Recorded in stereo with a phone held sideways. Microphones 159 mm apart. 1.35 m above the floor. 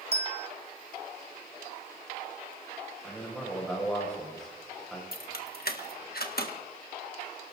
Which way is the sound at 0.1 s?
40° right (ahead or behind).